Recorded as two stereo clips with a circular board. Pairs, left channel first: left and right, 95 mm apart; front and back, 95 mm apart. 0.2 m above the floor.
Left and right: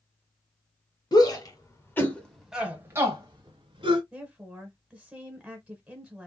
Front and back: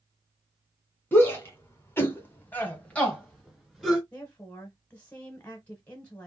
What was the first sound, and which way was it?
A shout, 60° left.